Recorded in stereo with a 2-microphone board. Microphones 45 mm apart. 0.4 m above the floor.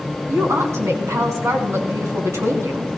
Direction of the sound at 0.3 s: 75° right (ahead or behind).